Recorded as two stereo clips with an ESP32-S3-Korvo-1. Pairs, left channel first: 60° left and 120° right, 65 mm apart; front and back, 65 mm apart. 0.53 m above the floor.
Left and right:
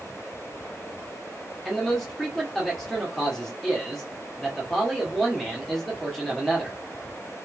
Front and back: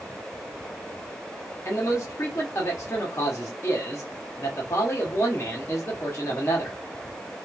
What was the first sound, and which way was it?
A man speaking, 25° right.